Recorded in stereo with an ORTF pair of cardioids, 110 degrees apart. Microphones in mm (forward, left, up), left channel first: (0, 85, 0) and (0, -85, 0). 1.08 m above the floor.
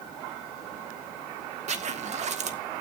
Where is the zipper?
45° right, 1.7 m.